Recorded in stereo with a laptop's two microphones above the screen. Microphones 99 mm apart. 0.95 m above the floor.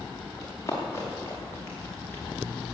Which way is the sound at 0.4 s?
30° left (ahead or behind).